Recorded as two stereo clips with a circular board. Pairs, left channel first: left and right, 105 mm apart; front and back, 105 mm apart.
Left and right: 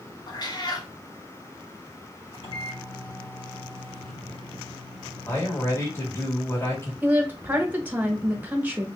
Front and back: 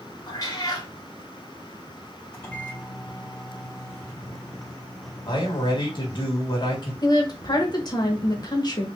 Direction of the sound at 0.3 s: 50° left.